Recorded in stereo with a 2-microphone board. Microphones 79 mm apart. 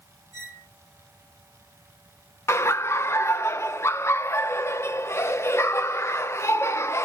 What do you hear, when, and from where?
0.3 s a squeak: 70° left (ahead or behind), 1.9 m
2.5 s laughter: 35° left (ahead or behind), 0.6 m